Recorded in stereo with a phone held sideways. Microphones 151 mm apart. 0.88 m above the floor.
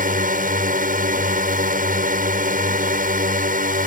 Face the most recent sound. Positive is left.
turn(degrees=-65)  # may be behind; listen again after turning